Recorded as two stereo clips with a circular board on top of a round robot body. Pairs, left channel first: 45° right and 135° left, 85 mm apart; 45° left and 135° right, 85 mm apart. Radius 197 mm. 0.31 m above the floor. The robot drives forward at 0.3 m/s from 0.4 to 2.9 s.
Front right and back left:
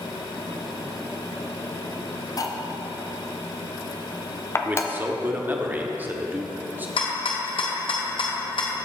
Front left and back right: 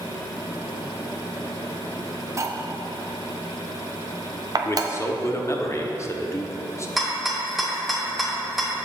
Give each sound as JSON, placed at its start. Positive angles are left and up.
{"t": 2.4, "sound": "cutlery clinking", "azimuth_deg": -85, "distance_m": 0.7}
{"t": 4.7, "sound": "a man speaking", "azimuth_deg": 80, "distance_m": 1.0}
{"t": 7.0, "sound": "a rattle", "azimuth_deg": -45, "distance_m": 1.0}